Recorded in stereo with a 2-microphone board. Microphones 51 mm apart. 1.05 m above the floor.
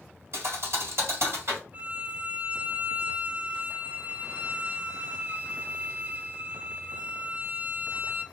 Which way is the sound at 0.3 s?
65° right (ahead or behind).